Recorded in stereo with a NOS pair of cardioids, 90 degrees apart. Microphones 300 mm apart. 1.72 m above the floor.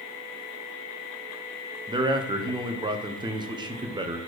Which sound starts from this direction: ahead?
A man speaking, at 1.9 s.